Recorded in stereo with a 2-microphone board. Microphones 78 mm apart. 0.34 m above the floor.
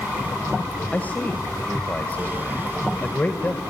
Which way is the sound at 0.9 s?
20° left (ahead or behind).